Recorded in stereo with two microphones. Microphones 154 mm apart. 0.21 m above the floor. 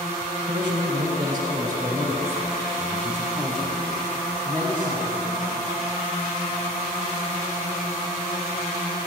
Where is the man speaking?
30° right (ahead or behind), 1.7 m; by 5.7 s 25° left (ahead or behind), 1.9 m.